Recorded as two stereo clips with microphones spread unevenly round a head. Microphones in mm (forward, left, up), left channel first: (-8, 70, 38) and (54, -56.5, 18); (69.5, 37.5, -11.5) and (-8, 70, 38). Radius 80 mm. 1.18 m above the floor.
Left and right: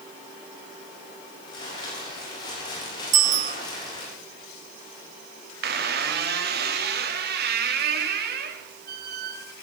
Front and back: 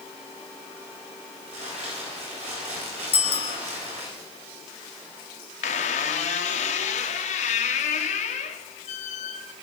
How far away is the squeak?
About 1.1 m.